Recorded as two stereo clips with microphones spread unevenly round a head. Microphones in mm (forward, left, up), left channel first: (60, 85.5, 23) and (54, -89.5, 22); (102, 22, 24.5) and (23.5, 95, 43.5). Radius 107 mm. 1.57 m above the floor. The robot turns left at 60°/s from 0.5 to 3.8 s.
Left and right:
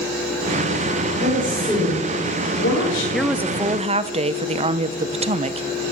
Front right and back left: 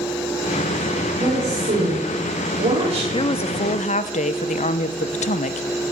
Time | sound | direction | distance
1.2 | a woman speaking | 145° right | 5 m
3.1 | a woman speaking | 5° left | 1.0 m